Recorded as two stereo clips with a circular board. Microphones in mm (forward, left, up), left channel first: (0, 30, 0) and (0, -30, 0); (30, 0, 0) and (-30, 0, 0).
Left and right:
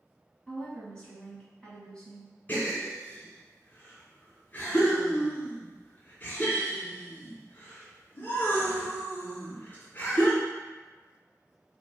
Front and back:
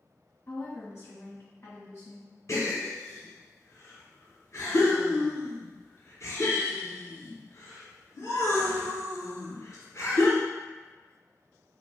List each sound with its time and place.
0.5 s a woman speaking: 20° left, 2.0 m
2.5 s a gasp: 35° left, 1.6 m